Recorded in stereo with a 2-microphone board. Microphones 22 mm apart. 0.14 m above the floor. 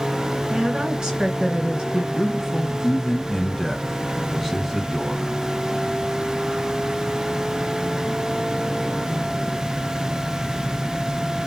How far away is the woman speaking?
About 2 m.